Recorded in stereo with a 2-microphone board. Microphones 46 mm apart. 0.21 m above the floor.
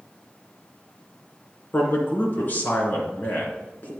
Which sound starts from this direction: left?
A man speaking, at 1.7 s.